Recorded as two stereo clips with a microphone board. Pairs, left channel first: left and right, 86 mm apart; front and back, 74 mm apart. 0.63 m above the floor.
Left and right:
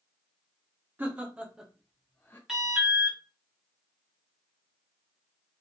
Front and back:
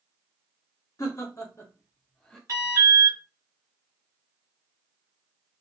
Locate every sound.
1.0 s laughter: 25° right, 1.1 m; by 2.4 s 75° left, 0.7 m
2.5 s an alarm: 170° right, 1.0 m